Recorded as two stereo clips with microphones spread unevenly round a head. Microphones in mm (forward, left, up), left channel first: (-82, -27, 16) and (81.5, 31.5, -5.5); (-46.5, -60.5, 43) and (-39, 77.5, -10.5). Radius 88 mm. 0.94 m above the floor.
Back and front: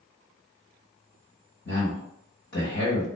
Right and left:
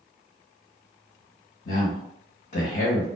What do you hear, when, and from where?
1.6 s a man speaking: 120° right, 1.3 m